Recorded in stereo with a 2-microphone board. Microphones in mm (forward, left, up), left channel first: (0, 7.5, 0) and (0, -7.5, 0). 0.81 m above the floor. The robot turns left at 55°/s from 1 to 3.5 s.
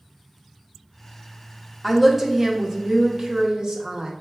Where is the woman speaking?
Straight ahead, 0.9 m; by 4.1 s 95° right, 0.9 m.